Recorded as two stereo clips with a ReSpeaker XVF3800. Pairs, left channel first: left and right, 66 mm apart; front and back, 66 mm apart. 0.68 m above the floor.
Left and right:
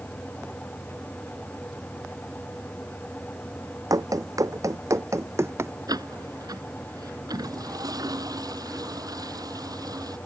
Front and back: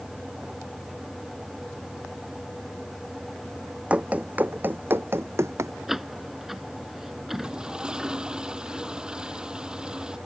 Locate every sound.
3.9 s running footsteps: 110° right; by 5.7 s 135° right
5.9 s a door slam: 95° right
7.3 s a toilet flushing: 100° right